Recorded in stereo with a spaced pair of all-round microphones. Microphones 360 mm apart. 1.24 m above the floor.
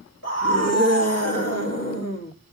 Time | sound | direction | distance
0.2 | a scream | 45° left (ahead or behind) | 1.9 m